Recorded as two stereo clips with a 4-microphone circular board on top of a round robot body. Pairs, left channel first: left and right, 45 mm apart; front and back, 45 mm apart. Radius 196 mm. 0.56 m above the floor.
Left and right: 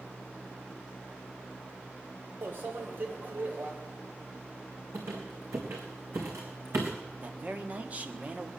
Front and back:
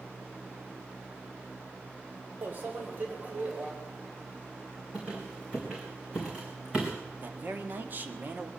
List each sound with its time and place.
2.4 s a microwave: 130° right, 2 m
4.9 s a squeak: 110° right, 3 m
7.2 s a man speaking: 140° right, 1.7 m